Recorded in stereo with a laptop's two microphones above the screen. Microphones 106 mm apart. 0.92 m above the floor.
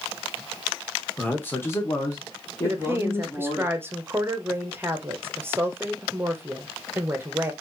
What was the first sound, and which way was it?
A man speaking, 15° left (ahead or behind).